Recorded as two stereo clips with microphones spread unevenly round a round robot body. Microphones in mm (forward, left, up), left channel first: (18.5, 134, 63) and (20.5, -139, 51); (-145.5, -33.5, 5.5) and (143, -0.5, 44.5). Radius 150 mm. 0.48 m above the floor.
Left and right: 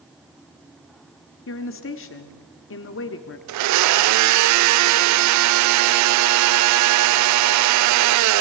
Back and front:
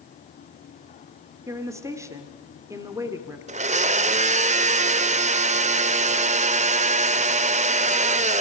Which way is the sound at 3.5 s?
60° right.